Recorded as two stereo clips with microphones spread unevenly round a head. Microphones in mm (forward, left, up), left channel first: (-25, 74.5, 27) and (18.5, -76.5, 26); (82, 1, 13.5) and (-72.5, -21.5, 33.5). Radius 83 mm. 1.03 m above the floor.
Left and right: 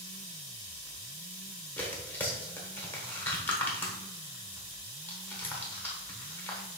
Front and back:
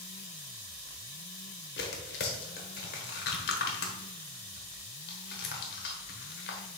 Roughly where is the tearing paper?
Ahead left.